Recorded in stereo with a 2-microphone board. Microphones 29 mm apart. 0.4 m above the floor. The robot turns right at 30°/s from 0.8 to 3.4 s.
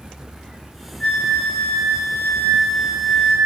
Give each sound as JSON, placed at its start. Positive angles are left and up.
{"t": 1.0, "sound": "a flute", "azimuth_deg": 45, "distance_m": 3.0}